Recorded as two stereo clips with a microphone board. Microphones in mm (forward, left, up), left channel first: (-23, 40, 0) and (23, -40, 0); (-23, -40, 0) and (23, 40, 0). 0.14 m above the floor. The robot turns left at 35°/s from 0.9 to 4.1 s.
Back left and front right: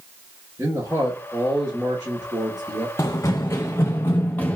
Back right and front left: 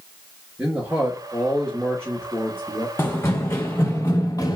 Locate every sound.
0.6 s a man speaking: 10° right, 2.5 m; by 2.9 s 80° right, 2.5 m
3.0 s running footsteps: 175° left, 0.7 m; by 4.6 s 165° right, 0.9 m